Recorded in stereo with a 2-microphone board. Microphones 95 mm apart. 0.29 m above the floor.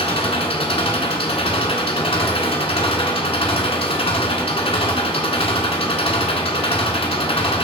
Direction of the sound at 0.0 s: 75° left (ahead or behind).